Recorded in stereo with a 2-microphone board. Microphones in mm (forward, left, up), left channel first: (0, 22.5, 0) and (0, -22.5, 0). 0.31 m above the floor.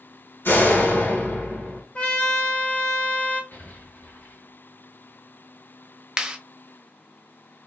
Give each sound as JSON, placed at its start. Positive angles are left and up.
{"t": 0.5, "sound": "a door slam", "side_deg": 60, "distance_m": 1.9}
{"t": 1.9, "sound": "a trumpet", "side_deg": 30, "distance_m": 1.2}
{"t": 3.5, "sound": "an explosion", "side_deg": 50, "distance_m": 2.0}
{"t": 6.2, "sound": "a clap", "side_deg": -20, "distance_m": 0.7}